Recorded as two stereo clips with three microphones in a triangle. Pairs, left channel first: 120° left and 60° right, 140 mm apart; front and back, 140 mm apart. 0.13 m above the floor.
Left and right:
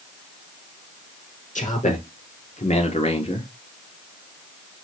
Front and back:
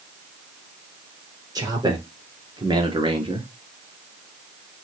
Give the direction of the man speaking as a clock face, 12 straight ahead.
8 o'clock.